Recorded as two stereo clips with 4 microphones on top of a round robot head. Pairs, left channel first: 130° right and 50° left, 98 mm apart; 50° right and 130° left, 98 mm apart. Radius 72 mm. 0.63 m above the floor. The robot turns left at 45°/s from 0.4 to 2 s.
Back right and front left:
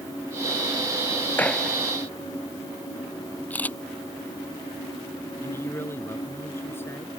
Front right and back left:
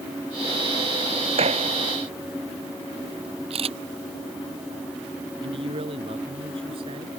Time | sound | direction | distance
1.4 | a gunshot | 155° left | ?
3.5 | a camera shutter | 155° left | ?
5.4 | a man speaking | 160° left | ?